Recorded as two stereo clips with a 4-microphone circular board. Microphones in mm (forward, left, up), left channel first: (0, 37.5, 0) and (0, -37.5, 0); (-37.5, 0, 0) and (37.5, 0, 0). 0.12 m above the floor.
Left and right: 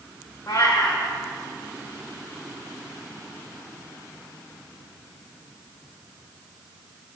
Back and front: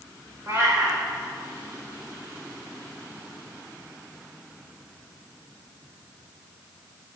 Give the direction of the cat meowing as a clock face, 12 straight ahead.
10 o'clock.